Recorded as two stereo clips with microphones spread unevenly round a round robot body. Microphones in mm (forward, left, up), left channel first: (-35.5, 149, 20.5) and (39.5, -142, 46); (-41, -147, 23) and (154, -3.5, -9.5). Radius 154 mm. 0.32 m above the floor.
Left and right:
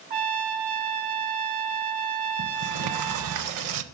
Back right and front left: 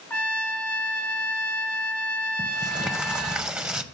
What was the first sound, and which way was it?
A trumpet, 60° right.